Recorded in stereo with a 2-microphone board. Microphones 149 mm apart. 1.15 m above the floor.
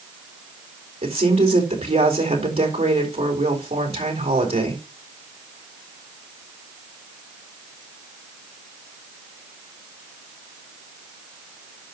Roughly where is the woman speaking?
Right.